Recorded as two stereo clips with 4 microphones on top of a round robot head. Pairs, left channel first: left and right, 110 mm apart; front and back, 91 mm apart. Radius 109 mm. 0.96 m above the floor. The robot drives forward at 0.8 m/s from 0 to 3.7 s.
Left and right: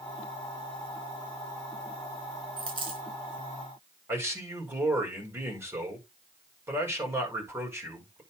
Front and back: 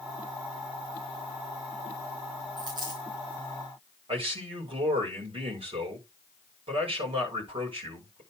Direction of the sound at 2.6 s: 125° right.